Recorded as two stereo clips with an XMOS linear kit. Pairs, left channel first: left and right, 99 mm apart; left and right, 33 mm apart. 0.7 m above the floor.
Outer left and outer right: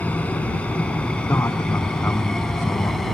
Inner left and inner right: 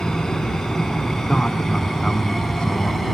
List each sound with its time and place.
0.0 s an aircraft: 15° left (ahead or behind); by 3.2 s centre (ahead or behind)
1.3 s a man speaking: 30° left (ahead or behind)